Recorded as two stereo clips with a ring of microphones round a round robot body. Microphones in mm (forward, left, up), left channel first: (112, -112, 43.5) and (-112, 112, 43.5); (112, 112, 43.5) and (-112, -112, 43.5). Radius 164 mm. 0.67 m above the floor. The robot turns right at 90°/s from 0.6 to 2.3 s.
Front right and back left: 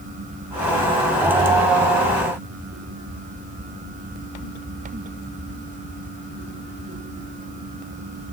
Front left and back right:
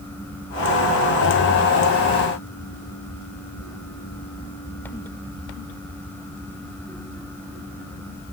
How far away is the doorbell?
No doorbell in this recording.